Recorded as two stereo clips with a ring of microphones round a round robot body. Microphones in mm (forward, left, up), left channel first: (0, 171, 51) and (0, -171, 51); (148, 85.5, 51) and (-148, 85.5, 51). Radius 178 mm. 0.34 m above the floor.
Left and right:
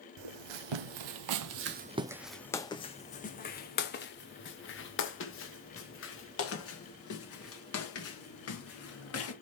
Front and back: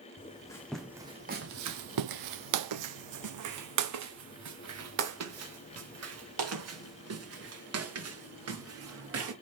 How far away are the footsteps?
About 0.9 m.